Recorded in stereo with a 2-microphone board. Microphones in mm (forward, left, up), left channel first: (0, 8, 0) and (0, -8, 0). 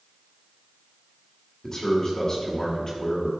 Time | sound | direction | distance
1.6 | a man speaking | 30° left (ahead or behind) | 2 m